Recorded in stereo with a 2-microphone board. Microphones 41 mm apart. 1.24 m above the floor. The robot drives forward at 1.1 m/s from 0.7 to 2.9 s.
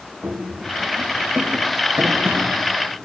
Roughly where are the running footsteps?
Right.